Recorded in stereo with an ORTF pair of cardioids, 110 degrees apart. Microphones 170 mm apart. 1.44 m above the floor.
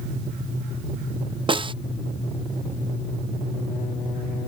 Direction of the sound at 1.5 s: 30° right.